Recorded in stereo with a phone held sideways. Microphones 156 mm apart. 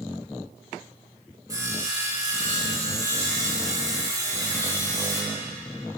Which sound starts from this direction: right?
Sawing, at 1.5 s.